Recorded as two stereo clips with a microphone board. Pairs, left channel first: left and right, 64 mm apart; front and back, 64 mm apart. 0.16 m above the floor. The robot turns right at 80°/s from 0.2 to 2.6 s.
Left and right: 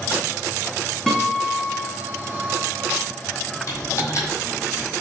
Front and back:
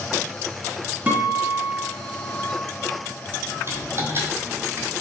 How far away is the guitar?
About 1.8 m.